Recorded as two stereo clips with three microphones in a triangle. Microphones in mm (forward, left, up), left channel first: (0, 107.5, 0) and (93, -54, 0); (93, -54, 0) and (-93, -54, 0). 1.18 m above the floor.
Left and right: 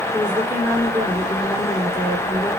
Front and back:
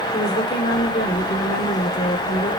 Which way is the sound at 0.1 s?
20° left.